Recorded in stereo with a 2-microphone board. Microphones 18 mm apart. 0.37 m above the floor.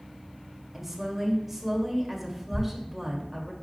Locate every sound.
0.7 s a woman speaking: 15° right (ahead or behind), 1.8 m
2.5 s a thud: 10° right (ahead or behind), 2 m